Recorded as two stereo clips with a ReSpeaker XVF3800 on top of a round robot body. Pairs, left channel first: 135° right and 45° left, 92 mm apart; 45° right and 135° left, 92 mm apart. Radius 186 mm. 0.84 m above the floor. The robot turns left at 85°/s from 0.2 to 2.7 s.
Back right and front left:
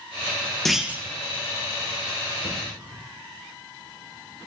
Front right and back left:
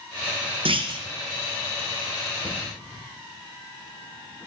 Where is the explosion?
30° left, 1.5 m; by 3.0 s 5° left, 1.5 m.